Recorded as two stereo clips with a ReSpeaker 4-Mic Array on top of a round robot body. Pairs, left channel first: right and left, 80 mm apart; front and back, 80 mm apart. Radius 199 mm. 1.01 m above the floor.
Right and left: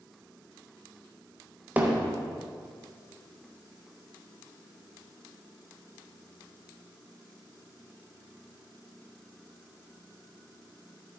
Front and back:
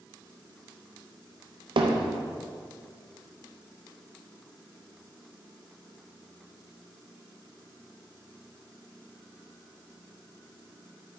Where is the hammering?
160° left, 0.6 m.